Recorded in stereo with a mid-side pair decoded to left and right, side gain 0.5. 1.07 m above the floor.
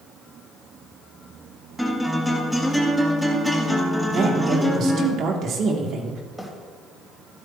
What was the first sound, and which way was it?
A guitar, 5° right.